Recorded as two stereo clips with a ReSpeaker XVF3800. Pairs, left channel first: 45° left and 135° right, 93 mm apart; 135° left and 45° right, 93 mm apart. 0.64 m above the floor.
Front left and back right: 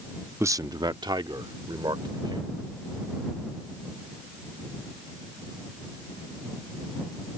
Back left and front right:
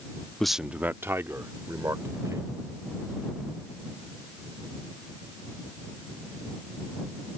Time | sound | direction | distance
0.4 | a man speaking | 150° right | ?